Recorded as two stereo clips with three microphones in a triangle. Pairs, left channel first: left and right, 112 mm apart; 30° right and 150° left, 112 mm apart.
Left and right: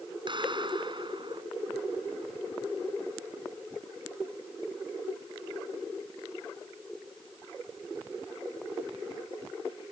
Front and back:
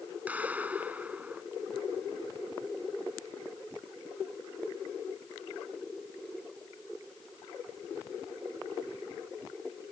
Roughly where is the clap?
Behind right.